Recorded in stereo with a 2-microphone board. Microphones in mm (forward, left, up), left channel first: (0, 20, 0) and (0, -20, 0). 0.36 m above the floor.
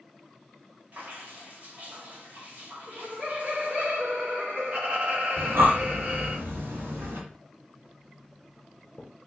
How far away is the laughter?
About 1.9 m.